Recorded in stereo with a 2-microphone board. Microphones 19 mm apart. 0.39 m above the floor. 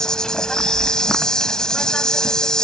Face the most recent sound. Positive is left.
turn(degrees=45)  # may be behind; listen again after turning